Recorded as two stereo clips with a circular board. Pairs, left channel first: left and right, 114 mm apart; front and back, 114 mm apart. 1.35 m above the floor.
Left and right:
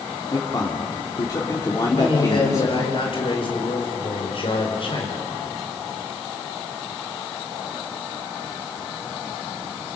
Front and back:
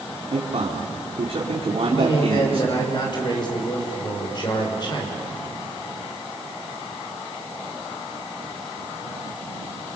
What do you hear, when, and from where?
0.3 s a man speaking: 150° left, 3.5 m
1.9 s a man speaking: 50° left, 6 m